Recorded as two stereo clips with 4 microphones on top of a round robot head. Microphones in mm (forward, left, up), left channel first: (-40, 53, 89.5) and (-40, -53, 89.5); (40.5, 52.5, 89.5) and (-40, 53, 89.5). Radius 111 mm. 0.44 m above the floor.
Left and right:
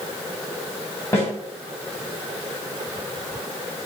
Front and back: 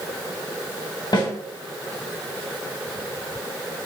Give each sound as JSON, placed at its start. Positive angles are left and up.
{"t": 1.1, "sound": "a snare drum", "azimuth_deg": 25, "distance_m": 3.0}